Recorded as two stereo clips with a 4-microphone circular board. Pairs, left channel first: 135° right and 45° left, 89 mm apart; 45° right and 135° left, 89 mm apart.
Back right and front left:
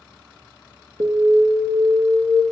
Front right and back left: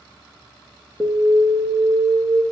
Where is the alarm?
60° left, 1.6 m.